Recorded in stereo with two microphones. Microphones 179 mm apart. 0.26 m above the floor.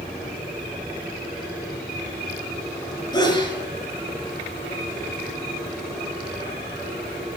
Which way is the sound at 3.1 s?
25° left (ahead or behind).